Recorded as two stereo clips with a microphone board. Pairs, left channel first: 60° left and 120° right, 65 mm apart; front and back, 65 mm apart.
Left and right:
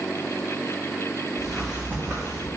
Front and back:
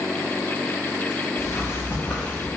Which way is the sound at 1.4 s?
25° right.